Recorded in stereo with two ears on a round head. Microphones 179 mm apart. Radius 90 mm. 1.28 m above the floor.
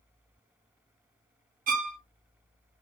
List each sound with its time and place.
1.7 s a violin: 40° right (ahead or behind), 0.6 m